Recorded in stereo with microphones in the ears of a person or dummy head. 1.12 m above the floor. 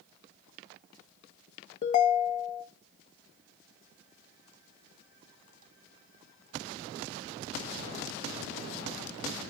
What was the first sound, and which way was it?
A ringtone, 35° left (ahead or behind).